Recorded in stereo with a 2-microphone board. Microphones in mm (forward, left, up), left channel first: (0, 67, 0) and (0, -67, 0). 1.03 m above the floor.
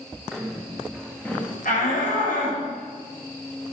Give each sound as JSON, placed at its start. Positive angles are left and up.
{"t": 0.3, "sound": "footsteps", "side_deg": 0, "distance_m": 3.0}
{"t": 1.6, "sound": "a shout", "side_deg": 85, "distance_m": 5.5}